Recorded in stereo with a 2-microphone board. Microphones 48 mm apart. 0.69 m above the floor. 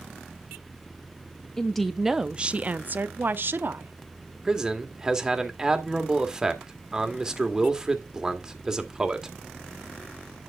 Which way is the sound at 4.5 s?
15° right (ahead or behind).